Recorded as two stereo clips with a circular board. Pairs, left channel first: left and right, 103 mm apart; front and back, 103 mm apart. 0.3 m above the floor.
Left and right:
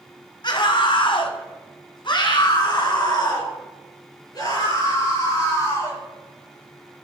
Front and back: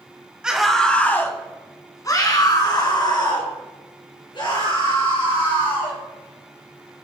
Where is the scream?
100° left, 1.4 m; by 6.0 s 40° left, 7 m.